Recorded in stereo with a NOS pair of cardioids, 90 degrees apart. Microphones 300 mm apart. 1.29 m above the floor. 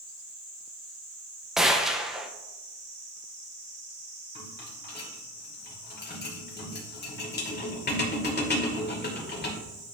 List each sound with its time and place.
1.6 s a gunshot: straight ahead, 0.8 m
4.3 s a rattle: 35° left, 2.5 m